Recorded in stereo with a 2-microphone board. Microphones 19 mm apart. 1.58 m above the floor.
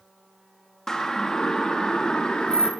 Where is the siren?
20° left (ahead or behind), 3 m; by 2.7 s 40° left (ahead or behind), 4 m.